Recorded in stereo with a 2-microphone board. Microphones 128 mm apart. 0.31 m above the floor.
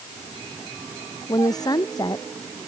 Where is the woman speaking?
30° left (ahead or behind).